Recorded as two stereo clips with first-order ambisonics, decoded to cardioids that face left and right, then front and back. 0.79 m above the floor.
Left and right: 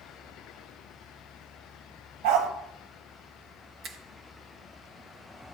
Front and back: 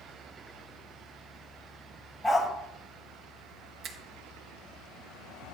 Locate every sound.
2.2 s a dog barking: 80° right, 1.8 m
3.8 s a finger snap: 135° right, 1.1 m